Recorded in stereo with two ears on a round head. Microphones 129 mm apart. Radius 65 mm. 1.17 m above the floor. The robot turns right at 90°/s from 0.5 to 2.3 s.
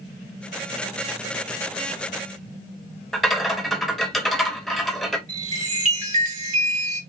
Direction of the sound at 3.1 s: Centre (ahead or behind).